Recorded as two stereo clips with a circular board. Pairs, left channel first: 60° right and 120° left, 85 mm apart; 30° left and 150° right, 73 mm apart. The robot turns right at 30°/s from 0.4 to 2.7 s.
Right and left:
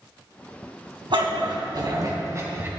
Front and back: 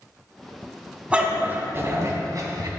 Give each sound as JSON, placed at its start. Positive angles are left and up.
{"t": 1.1, "sound": "a dog barking", "azimuth_deg": 135, "distance_m": 2.5}